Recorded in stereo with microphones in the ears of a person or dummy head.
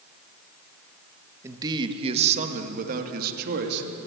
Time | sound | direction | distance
1.4 | a man speaking | 15° right (ahead or behind) | 1.4 m